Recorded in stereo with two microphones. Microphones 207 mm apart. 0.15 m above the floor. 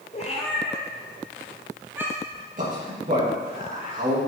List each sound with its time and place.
0.1 s a cat meowing: 35° left (ahead or behind), 1.7 m; by 2.4 s 15° right (ahead or behind), 2 m
2.6 s a man speaking: 40° right (ahead or behind), 4 m